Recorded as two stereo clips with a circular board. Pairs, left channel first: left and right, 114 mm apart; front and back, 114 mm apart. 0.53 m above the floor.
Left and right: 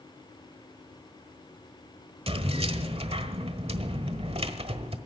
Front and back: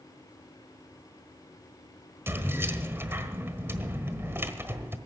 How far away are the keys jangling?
About 1.3 m.